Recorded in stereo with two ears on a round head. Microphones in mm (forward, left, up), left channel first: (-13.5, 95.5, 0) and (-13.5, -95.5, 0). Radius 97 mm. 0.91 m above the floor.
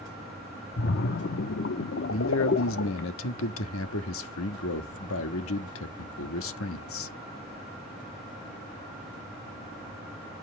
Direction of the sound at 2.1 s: 65° left (ahead or behind).